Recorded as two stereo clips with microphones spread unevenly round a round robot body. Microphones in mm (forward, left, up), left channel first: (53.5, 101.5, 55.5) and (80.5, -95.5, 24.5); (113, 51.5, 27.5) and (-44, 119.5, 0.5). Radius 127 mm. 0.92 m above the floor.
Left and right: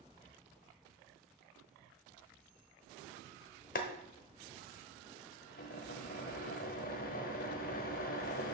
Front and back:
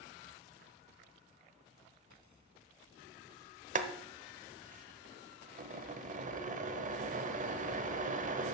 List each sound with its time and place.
3.8 s boiling: 120° left, 0.8 m